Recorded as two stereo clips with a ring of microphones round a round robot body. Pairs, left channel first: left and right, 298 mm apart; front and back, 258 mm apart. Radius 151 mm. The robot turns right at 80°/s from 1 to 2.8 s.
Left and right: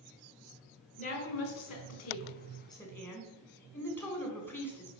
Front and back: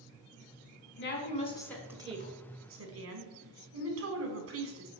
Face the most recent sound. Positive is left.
turn(degrees=170)